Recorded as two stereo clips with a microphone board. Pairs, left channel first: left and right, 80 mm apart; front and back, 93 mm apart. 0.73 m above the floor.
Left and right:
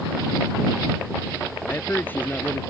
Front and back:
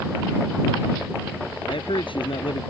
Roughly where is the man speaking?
Ahead left.